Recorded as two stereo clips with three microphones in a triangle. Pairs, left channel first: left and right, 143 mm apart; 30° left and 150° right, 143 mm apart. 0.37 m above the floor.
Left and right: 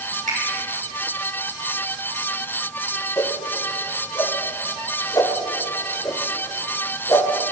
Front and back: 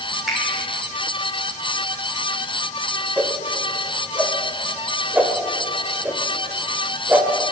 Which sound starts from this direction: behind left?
A whoosh, at 3.2 s.